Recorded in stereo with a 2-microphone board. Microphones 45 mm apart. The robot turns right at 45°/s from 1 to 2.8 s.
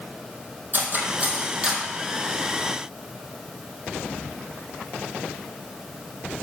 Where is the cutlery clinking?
45° right (ahead or behind), 2.5 m; by 1.8 s 10° right (ahead or behind), 2.5 m.